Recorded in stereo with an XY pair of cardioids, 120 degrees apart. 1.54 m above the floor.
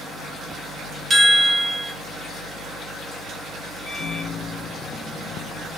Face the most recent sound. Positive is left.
turn(degrees=50)